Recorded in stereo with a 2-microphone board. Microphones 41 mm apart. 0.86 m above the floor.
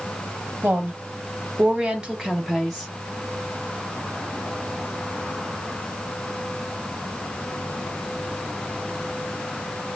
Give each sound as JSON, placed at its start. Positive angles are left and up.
{"t": 0.6, "sound": "a woman speaking", "side_deg": -50, "distance_m": 1.3}